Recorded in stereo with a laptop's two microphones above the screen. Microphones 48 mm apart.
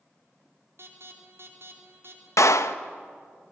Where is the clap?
75° left (ahead or behind), 0.8 m.